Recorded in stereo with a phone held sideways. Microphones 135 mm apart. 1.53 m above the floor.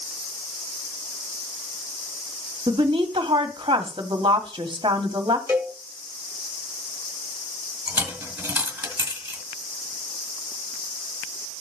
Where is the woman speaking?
35° right (ahead or behind), 1.6 m.